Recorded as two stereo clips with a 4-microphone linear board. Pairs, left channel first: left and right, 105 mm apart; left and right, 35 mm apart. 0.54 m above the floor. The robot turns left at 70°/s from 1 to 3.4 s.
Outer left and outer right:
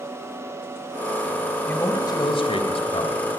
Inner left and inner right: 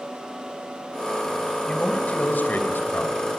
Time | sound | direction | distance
1.7 | a man speaking | 160° left | 3 m